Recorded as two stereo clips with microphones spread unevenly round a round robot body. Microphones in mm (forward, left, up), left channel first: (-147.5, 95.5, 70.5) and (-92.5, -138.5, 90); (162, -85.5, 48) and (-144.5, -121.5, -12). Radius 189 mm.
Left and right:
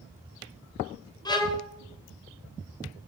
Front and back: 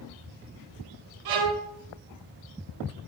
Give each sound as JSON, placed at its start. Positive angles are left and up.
{"t": 1.2, "sound": "a violin", "azimuth_deg": 180, "distance_m": 2.5}